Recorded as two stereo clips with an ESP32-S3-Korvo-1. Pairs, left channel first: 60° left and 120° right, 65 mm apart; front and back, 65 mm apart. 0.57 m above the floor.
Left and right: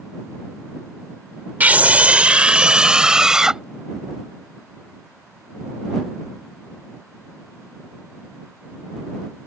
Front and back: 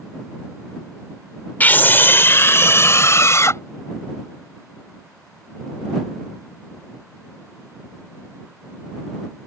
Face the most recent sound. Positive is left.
turn(degrees=-40)